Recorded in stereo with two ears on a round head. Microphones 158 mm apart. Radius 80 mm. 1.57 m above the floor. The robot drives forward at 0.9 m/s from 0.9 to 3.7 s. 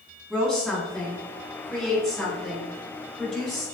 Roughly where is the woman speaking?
Centre.